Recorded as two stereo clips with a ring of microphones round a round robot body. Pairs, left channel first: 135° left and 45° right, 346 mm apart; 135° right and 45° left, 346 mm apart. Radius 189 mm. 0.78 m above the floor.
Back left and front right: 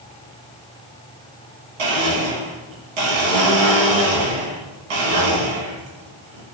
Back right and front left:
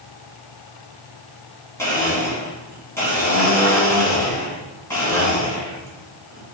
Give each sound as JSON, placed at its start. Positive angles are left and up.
{"t": 1.8, "sound": "a blender", "azimuth_deg": -50, "distance_m": 1.4}